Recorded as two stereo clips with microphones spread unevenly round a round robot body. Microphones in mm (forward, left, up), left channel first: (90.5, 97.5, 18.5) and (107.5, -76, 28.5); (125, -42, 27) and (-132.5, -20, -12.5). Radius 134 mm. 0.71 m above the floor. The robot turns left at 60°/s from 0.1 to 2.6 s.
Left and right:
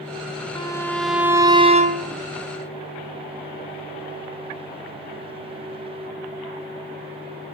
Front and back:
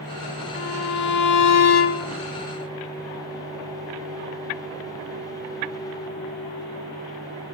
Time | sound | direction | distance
0.6 | a violin | 40° left | 1.5 m